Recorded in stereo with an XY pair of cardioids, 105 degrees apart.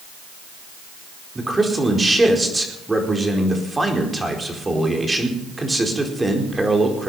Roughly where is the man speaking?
Ahead.